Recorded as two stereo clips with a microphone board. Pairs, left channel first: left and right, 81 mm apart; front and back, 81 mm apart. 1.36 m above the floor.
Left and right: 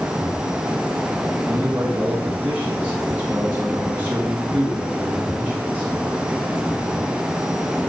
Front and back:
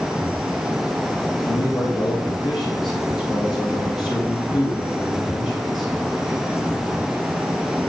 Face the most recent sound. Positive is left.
turn(degrees=-25)